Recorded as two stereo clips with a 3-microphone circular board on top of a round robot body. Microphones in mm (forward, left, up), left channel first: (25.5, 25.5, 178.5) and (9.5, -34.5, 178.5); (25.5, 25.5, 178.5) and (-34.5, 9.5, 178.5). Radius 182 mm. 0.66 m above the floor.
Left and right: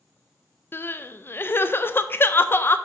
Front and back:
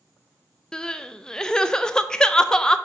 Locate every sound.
0.7 s crying: 85° left, 0.6 m